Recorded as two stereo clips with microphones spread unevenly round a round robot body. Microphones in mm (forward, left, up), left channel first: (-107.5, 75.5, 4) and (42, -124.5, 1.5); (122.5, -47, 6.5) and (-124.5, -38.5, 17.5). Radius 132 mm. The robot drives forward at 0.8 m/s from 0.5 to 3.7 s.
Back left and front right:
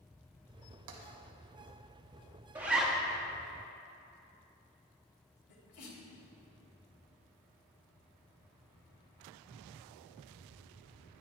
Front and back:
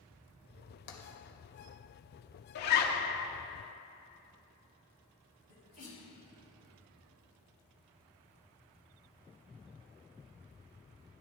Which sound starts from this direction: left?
A sneeze, at 5.5 s.